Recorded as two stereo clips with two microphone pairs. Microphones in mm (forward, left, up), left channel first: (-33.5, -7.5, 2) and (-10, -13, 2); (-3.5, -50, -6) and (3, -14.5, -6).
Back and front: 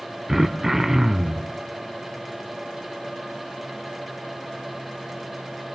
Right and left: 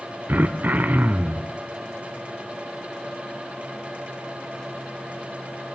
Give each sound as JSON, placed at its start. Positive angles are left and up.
{"t": 0.3, "sound": "throat clearing", "azimuth_deg": 55, "distance_m": 1.1}